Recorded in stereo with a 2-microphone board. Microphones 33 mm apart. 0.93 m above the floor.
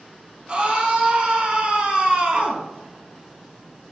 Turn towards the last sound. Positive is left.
turn(degrees=-40)  # may be behind; listen again after turning